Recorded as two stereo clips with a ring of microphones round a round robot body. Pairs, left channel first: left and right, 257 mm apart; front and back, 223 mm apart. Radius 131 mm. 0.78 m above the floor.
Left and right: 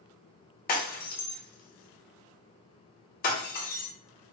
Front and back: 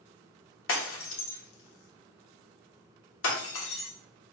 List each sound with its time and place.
0.7 s breaking glass: 30° left, 0.9 m